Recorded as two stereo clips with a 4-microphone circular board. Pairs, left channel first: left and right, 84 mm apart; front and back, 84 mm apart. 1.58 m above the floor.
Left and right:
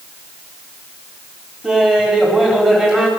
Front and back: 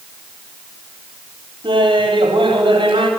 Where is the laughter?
170° right, 4 m.